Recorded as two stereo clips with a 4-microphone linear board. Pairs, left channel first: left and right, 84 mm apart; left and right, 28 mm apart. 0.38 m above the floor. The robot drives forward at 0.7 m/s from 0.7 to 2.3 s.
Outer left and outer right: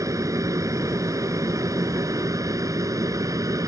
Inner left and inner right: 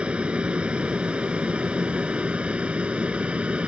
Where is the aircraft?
40° right (ahead or behind).